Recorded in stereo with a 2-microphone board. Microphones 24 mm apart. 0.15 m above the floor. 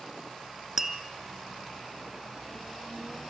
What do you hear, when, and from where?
0.8 s tapping: 15° right (ahead or behind), 1.6 m